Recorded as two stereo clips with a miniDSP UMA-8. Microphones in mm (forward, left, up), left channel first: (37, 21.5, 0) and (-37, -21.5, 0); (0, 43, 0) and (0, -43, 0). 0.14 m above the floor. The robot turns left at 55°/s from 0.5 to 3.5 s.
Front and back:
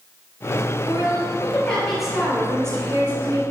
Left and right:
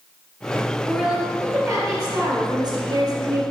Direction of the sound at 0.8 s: 5° left.